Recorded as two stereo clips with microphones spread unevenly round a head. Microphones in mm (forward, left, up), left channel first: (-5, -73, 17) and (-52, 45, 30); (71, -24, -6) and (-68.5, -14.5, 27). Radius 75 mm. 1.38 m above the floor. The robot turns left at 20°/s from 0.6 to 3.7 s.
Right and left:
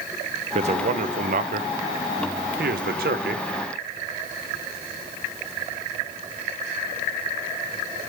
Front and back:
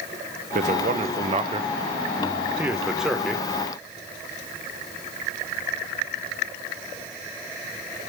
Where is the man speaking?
145° left, 0.6 m; by 3.5 s 85° left, 0.6 m.